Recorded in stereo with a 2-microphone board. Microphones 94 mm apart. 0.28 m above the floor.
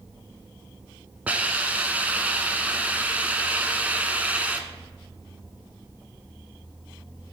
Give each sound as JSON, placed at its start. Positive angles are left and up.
{"t": 1.3, "sound": "a hiss", "side_deg": -15, "distance_m": 0.9}